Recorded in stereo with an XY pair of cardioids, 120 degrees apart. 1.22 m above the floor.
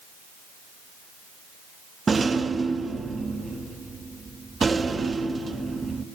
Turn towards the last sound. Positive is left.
turn(degrees=-25)